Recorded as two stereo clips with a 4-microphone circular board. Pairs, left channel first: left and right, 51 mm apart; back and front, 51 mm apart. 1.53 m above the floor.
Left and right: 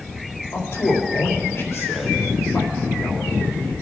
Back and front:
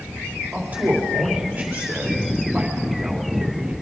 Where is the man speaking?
60° left, 3.5 m.